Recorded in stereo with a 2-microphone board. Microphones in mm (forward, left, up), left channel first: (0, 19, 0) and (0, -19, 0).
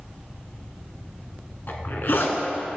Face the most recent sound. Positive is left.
turn(degrees=65)  # may be behind; listen again after turning